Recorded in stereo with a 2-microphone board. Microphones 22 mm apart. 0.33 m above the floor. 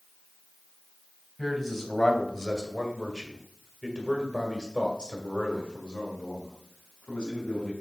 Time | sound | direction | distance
1.4 | a man speaking | centre (ahead or behind) | 2 m